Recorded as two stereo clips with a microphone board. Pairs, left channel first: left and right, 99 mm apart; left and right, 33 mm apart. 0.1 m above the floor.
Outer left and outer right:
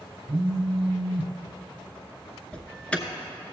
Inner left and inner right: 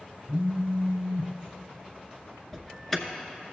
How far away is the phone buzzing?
About 0.8 m.